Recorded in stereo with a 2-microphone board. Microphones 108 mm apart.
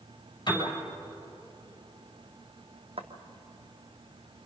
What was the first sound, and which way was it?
A piano, 40° left (ahead or behind).